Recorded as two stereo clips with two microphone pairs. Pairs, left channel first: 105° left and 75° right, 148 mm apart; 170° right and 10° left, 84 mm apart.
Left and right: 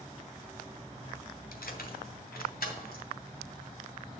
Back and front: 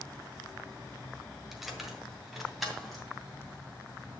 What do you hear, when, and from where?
1.5 s keys jangling: 100° left, 1.5 m